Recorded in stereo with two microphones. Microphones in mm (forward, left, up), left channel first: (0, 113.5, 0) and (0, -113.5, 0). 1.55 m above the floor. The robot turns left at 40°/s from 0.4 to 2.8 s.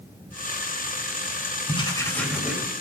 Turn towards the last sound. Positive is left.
turn(degrees=-15)